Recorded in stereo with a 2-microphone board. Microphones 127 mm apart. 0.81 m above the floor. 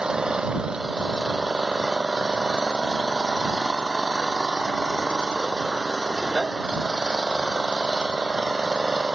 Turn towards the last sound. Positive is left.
turn(degrees=-5)  # may be behind; listen again after turning